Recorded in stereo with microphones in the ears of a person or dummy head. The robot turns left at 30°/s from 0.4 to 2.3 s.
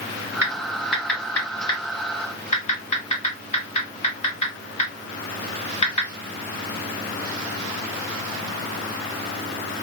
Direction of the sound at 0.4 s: 15° right (ahead or behind).